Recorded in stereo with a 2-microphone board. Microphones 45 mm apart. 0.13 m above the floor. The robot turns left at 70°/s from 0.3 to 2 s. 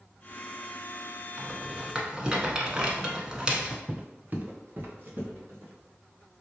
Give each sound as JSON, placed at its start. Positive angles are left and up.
{"t": 1.4, "sound": "a rattle", "side_deg": -25, "distance_m": 0.9}
{"t": 3.9, "sound": "footsteps", "side_deg": -25, "distance_m": 0.6}